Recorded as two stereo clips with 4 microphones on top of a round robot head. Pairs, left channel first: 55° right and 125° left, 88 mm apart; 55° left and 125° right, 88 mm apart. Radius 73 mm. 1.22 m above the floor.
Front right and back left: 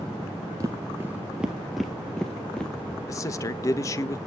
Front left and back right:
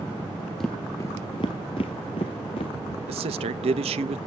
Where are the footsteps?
135° left, 1.2 m; by 3.0 s 25° left, 2.5 m.